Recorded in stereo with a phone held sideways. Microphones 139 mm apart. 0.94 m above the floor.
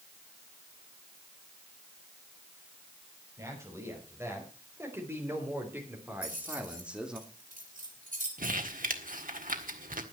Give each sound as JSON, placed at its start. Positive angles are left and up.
{"t": 3.4, "sound": "a man speaking", "side_deg": -20, "distance_m": 5.5}
{"t": 6.2, "sound": "keys jangling", "side_deg": -85, "distance_m": 4.0}
{"t": 8.4, "sound": "crumpling", "side_deg": -85, "distance_m": 1.6}